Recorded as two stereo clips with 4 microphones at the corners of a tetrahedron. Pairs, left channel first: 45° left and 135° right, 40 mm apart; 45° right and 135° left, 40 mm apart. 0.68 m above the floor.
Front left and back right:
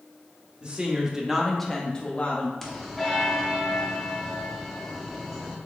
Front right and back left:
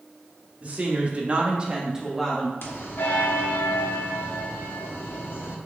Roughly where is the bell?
Ahead right.